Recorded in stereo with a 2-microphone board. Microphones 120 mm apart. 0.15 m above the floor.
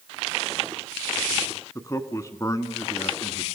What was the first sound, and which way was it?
A man speaking, 25° left (ahead or behind).